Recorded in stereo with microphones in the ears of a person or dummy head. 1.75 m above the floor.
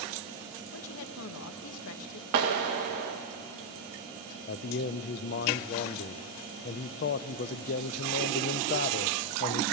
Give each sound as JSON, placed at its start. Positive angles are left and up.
{"t": 0.7, "sound": "a woman speaking", "side_deg": 70, "distance_m": 1.2}
{"t": 2.3, "sound": "a clap", "side_deg": -55, "distance_m": 1.5}
{"t": 4.5, "sound": "a man speaking", "side_deg": 40, "distance_m": 0.5}